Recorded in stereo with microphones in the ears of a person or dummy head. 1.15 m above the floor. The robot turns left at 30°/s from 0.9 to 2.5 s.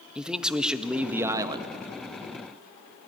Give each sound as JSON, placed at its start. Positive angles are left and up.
{"t": 0.1, "sound": "a man speaking", "side_deg": -5, "distance_m": 1.3}